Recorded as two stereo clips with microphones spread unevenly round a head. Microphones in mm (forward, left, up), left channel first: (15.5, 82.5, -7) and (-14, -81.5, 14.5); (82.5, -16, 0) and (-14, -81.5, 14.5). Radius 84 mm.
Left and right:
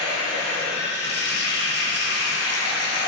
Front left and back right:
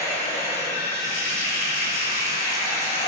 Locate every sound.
0.0 s running water: 55° left, 2.5 m